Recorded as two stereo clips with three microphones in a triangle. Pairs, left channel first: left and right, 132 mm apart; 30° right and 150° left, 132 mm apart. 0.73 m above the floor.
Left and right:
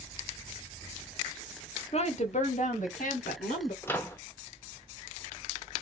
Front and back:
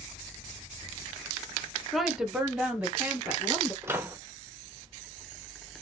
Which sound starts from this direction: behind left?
A microwave, at 3.8 s.